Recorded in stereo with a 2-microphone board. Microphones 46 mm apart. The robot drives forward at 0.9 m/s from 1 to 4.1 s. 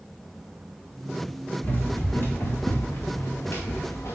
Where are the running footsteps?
45° left (ahead or behind), 2.5 m; by 4.2 s 85° left, 2 m.